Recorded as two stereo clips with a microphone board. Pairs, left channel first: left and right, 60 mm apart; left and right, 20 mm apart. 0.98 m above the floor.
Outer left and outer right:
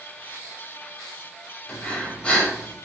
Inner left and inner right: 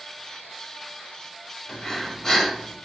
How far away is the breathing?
About 1.2 m.